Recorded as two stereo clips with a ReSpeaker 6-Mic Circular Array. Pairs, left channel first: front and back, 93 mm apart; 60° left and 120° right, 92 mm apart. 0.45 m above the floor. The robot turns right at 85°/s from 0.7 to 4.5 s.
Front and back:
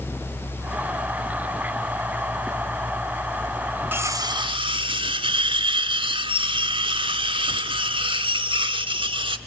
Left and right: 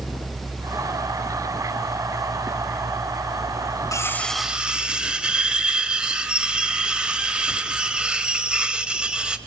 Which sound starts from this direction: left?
Cutlery clinking, at 3.9 s.